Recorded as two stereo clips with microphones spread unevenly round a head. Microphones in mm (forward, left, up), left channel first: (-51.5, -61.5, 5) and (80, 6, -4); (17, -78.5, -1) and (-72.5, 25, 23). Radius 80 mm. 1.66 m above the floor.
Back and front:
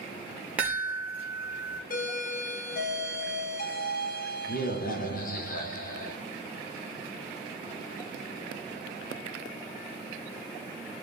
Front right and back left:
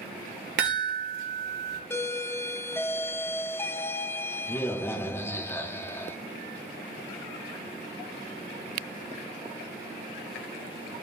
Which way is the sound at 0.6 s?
110° left.